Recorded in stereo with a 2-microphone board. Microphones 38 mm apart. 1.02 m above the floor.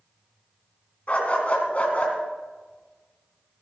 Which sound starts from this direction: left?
A dog barking, at 1.1 s.